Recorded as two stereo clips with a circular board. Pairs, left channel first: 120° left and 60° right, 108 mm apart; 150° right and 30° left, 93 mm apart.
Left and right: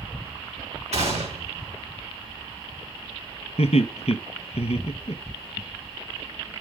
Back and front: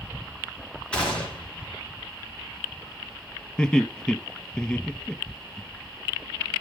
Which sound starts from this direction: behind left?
Laughter, at 3.6 s.